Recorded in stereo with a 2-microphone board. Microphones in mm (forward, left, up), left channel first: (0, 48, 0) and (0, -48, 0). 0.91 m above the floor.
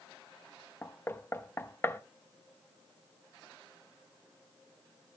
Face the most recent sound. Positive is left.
turn(degrees=25)  # may be behind; listen again after turning